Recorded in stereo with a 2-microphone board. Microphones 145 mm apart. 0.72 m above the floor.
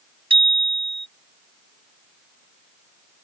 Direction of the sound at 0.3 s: 40° right (ahead or behind).